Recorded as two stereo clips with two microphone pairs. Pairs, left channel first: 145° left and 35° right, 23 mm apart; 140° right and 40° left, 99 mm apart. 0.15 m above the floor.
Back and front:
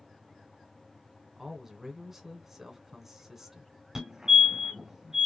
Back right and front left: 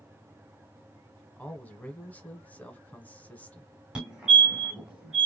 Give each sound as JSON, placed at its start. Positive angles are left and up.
{"t": 1.4, "sound": "a man speaking", "azimuth_deg": -95, "distance_m": 1.1}
{"t": 4.0, "sound": "a fire alarm", "azimuth_deg": -25, "distance_m": 2.0}